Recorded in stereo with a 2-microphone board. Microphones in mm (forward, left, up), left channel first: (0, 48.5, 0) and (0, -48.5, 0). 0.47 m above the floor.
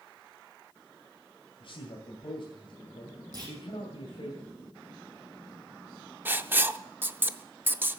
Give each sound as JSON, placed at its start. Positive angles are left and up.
{"t": 1.6, "sound": "a man speaking", "side_deg": 70, "distance_m": 2.5}
{"t": 3.3, "sound": "a clunk", "side_deg": -40, "distance_m": 5.5}
{"t": 6.2, "sound": "writing", "side_deg": -20, "distance_m": 0.5}